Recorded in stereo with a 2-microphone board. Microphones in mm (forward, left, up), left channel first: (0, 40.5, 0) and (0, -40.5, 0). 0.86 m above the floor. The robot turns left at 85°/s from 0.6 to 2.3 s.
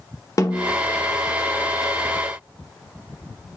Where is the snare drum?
40° left (ahead or behind), 0.6 m; by 0.8 s 45° left (ahead or behind), 0.6 m.